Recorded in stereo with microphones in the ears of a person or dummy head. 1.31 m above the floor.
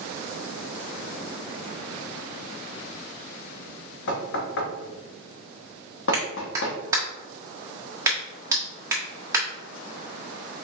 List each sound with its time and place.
4.1 s knocking: 70° left (ahead or behind), 0.9 m
6.1 s a clap: 15° right (ahead or behind), 1.2 m